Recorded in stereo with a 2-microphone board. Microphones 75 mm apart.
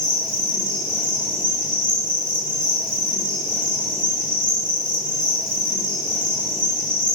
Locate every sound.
0.0 s an insect: 15° right (ahead or behind), 1.3 m